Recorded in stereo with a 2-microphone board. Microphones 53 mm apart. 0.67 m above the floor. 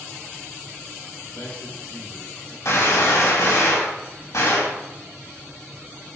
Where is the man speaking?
75° left (ahead or behind), 4 m.